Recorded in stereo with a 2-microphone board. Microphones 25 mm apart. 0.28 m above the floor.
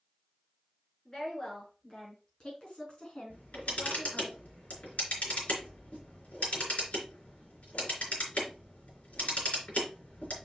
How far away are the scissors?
No scissors in this recording.